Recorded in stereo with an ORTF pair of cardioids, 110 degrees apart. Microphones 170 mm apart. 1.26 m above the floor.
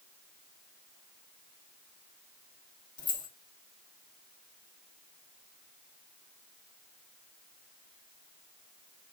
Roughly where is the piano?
No piano in this recording.